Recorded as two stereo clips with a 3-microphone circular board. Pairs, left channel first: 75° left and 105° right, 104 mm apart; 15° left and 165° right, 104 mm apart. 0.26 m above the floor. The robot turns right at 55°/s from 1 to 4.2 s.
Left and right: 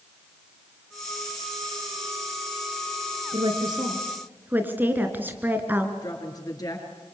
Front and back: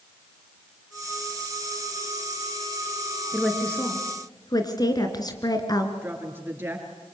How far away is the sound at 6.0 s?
About 5 m.